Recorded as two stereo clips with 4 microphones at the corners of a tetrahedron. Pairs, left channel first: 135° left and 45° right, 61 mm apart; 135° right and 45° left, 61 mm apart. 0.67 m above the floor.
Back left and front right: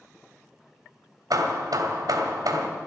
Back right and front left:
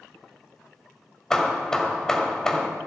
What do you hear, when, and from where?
1.3 s hammering: 55° right, 1.6 m